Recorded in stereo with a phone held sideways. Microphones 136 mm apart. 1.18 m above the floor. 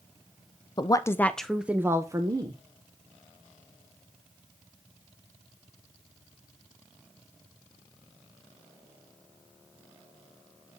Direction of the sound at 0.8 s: 30° left (ahead or behind).